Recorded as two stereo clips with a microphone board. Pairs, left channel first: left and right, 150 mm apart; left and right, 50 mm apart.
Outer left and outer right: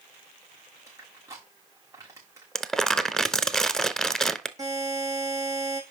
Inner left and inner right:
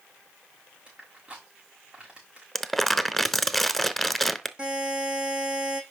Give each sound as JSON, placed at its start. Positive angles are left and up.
{"t": 0.9, "sound": "crushing", "side_deg": -20, "distance_m": 4.5}
{"t": 2.5, "sound": "crumpling", "side_deg": 5, "distance_m": 0.6}
{"t": 4.6, "sound": "a buzzer", "side_deg": -25, "distance_m": 5.0}